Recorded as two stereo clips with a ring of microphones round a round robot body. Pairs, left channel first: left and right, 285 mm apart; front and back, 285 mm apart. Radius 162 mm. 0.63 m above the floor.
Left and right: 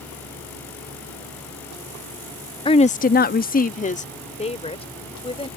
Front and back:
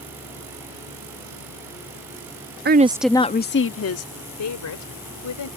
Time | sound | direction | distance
2.6 | a woman speaking | 155° left | ?